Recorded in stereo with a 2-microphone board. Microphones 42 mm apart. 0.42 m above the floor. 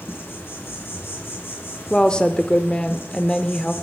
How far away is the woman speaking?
About 0.8 m.